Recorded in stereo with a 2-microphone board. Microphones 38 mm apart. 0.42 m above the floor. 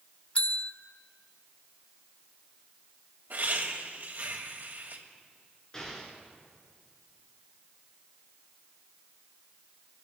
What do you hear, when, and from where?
0.3 s a bell: 35° left (ahead or behind), 0.6 m
3.3 s laughter: 60° right (ahead or behind), 2 m
5.7 s an explosion: 20° left (ahead or behind), 2.5 m